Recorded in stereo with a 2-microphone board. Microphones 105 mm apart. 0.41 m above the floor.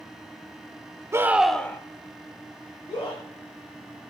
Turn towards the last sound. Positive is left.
turn(degrees=45)  # may be behind; listen again after turning